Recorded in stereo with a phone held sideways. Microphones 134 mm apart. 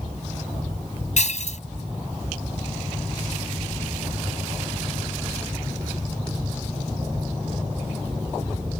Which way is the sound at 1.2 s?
65° left (ahead or behind).